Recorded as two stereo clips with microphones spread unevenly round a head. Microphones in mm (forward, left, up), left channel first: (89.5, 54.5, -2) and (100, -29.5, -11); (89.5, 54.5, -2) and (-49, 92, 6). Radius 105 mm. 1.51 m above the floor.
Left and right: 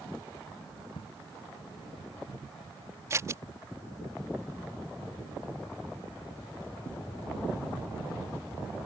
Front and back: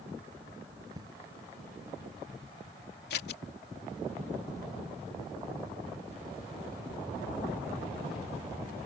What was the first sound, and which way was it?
An explosion, 105° left.